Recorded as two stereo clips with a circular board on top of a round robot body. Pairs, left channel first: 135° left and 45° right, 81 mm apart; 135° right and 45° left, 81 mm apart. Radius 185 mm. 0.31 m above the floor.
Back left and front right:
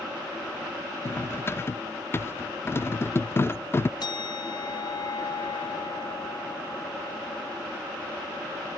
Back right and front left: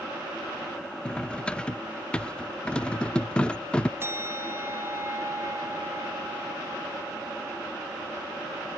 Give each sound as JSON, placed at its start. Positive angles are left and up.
{"t": 1.1, "sound": "cutlery clinking", "azimuth_deg": 155, "distance_m": 0.5}
{"t": 4.0, "sound": "a bell", "azimuth_deg": 105, "distance_m": 1.2}